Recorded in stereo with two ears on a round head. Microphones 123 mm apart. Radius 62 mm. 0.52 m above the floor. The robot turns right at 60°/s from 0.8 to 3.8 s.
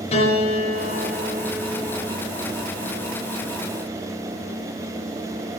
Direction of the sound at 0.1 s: 135° left.